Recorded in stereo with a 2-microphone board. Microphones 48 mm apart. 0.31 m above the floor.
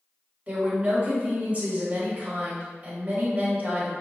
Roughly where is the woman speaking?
Right.